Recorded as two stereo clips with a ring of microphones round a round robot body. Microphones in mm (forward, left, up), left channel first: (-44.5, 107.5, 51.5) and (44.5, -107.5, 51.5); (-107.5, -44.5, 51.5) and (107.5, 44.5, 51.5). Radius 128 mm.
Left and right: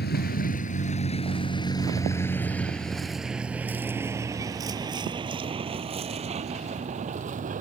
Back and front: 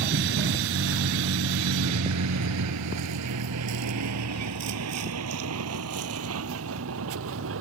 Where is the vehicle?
65° left; by 7.6 s 10° right.